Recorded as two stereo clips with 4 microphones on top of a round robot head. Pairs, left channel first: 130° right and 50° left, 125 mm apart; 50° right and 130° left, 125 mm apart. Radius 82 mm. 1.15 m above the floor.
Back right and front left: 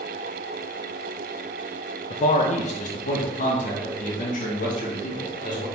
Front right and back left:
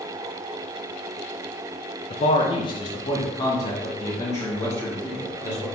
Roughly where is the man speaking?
Right.